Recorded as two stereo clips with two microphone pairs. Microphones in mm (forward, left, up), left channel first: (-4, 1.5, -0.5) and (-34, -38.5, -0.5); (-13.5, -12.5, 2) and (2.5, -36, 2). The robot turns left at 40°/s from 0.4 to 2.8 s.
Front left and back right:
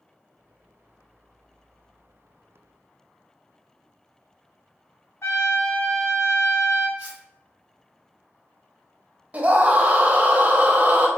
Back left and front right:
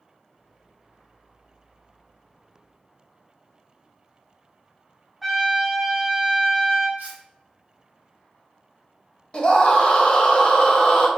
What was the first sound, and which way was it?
A trumpet, 25° left.